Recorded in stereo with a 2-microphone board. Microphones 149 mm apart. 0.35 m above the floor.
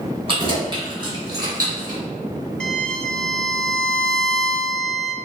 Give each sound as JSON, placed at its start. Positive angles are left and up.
{"t": 0.3, "sound": "keys jangling", "side_deg": -40, "distance_m": 1.7}
{"t": 2.6, "sound": "a violin", "side_deg": 5, "distance_m": 0.8}